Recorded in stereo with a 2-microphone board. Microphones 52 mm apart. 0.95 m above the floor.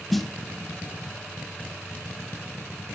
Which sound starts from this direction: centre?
A snare drum, at 0.1 s.